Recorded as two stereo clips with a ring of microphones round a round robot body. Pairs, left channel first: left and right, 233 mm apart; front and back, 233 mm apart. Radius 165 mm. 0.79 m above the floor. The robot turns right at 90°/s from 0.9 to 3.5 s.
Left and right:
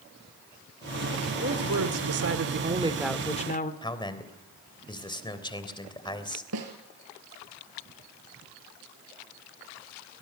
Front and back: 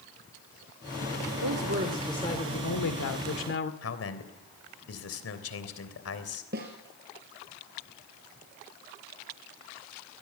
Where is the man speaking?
20° left, 3 m.